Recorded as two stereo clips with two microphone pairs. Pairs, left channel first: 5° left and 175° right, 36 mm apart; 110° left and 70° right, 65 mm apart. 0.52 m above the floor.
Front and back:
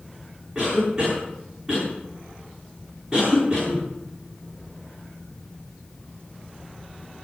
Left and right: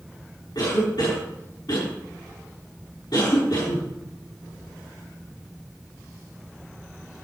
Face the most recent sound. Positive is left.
turn(degrees=105)